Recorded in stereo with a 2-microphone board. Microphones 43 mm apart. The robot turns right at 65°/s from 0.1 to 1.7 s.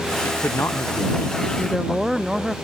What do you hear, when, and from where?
0.2 s a man speaking: 65° left; by 2.6 s 160° left
1.6 s a woman speaking: 5° left (ahead or behind); by 2.5 s 5° right (ahead or behind)